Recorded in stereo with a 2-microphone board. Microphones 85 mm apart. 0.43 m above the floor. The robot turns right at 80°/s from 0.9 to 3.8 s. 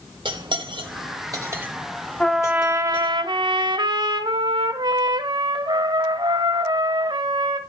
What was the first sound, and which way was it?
Cutlery clinking, 65° right (ahead or behind).